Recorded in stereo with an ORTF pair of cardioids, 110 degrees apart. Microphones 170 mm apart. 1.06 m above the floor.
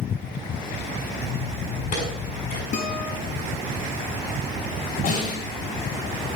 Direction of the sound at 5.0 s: 60° left.